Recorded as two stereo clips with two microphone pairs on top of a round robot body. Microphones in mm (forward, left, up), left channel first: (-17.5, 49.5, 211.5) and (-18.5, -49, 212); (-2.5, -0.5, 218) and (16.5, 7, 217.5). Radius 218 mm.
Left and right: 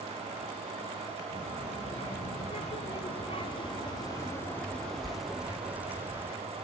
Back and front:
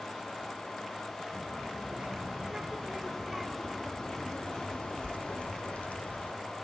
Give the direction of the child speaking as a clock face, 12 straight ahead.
9 o'clock.